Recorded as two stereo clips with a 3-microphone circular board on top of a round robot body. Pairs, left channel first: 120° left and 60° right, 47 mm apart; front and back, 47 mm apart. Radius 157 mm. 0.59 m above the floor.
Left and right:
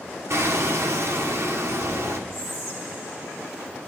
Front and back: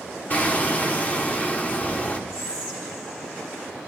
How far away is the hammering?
About 1.3 m.